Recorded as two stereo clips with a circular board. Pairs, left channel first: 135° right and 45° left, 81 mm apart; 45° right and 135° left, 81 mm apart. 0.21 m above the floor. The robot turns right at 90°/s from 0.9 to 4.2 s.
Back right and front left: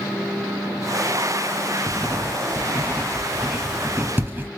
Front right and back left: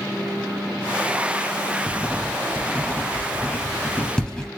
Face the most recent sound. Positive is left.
turn(degrees=25)